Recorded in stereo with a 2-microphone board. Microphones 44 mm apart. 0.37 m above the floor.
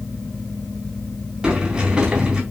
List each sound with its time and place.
1.4 s a sliding door: 20° right (ahead or behind), 3.5 m